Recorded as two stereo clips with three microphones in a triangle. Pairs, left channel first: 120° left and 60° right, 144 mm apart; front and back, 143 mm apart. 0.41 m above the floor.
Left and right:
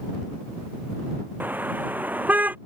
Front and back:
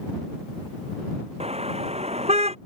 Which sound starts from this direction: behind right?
A car horn, at 1.4 s.